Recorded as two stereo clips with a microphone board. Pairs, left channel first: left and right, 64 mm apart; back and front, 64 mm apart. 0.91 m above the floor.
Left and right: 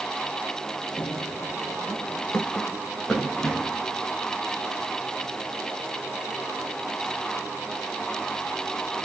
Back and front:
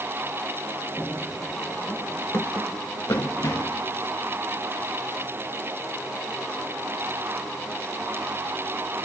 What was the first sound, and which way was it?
Running footsteps, 115° left.